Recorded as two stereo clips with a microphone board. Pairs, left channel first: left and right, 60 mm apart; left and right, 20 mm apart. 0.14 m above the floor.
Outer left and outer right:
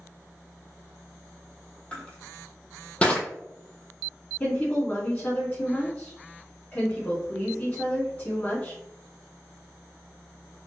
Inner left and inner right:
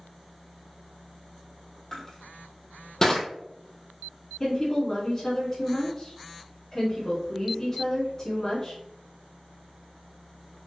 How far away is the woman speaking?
About 1.6 m.